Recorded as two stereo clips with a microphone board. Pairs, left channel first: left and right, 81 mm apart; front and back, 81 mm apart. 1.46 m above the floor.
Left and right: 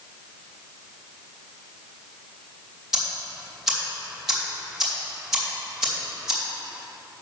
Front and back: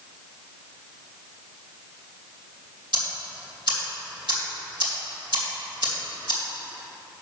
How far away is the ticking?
About 2.5 m.